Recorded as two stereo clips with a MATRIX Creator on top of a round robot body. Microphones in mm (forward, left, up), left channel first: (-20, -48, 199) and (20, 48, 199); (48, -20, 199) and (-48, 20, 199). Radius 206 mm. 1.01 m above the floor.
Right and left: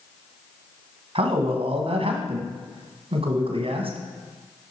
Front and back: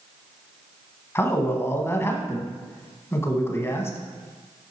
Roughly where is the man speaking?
Ahead left.